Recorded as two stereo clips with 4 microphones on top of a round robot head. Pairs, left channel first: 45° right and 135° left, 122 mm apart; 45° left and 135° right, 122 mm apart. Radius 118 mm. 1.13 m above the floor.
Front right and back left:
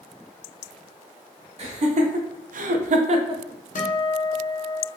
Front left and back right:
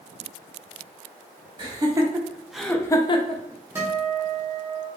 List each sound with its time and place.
1.6 s laughter: 170° left, 0.9 m; by 3.4 s 80° left, 0.5 m
3.8 s a guitar: 65° right, 0.6 m